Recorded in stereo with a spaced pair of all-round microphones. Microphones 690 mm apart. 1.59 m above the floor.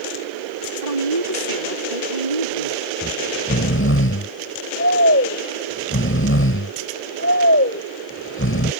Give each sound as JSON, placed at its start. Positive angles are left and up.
{"t": 0.8, "sound": "a woman speaking", "side_deg": -85}
{"t": 3.0, "sound": "snoring", "side_deg": 20}